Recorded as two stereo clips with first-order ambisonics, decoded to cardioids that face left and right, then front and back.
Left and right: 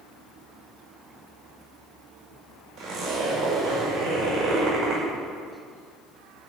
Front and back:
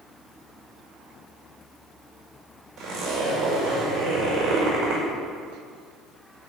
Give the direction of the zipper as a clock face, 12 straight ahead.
4 o'clock.